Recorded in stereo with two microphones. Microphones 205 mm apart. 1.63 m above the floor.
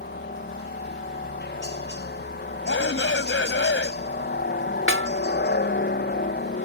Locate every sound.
0.0 s a helicopter: 55° left (ahead or behind)
2.6 s a shout: 65° left (ahead or behind)
4.9 s a snare drum: 70° right (ahead or behind)